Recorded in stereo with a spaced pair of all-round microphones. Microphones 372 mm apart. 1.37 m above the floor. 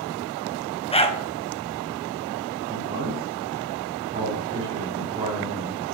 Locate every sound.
0.9 s a dog barking: 15° left (ahead or behind), 0.8 m
2.7 s a man speaking: 15° right (ahead or behind), 3.5 m